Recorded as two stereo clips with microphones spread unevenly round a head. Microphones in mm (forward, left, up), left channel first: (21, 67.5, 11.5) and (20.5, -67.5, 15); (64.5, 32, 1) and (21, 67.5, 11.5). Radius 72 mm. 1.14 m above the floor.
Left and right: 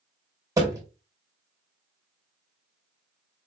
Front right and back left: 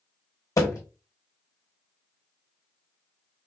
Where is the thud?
25° right, 2.5 m.